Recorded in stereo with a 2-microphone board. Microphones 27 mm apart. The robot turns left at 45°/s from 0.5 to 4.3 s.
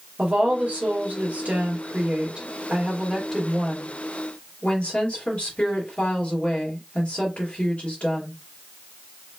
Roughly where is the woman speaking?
Ahead right.